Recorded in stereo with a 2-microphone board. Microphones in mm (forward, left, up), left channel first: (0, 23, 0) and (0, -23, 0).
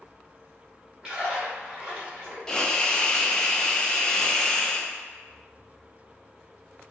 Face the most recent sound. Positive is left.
turn(degrees=15)  # may be behind; listen again after turning